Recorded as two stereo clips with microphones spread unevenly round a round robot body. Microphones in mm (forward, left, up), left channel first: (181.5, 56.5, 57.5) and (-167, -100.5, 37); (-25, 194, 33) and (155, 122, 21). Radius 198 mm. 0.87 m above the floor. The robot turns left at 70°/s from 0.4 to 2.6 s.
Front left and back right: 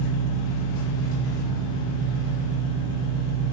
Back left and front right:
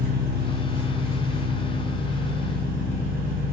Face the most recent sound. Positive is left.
turn(degrees=-145)